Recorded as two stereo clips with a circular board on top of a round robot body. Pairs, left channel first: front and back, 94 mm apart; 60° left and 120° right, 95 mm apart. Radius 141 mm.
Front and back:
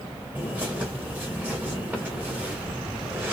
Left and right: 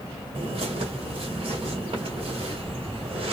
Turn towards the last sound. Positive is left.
turn(degrees=-105)